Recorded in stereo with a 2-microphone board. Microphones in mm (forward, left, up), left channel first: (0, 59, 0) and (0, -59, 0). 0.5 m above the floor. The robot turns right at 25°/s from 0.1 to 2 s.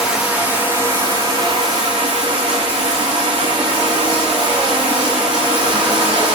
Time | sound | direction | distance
0.0 | running water | 170° right | 6.5 m